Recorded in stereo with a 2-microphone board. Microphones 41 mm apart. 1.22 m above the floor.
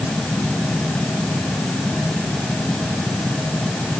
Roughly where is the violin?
No violin in this recording.